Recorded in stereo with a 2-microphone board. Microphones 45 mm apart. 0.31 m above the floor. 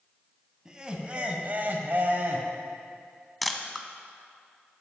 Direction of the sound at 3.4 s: Centre (ahead or behind).